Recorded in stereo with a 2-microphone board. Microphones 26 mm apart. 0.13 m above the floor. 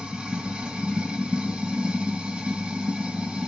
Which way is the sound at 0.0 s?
40° right (ahead or behind).